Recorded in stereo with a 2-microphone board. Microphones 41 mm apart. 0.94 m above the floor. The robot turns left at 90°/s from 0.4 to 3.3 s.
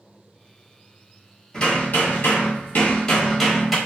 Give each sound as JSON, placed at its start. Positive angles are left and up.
{"t": 1.5, "sound": "hammering", "azimuth_deg": 165, "distance_m": 1.2}